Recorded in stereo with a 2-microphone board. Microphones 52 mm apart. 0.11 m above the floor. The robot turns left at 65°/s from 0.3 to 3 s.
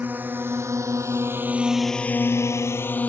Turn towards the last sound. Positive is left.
turn(degrees=30)  # may be behind; listen again after turning